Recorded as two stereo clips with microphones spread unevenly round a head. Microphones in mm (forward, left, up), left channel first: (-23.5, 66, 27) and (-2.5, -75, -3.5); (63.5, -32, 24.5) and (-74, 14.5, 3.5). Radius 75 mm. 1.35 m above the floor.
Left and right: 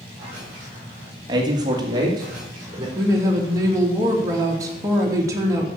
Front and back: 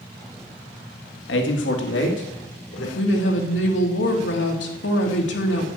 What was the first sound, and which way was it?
A man speaking, 20° right.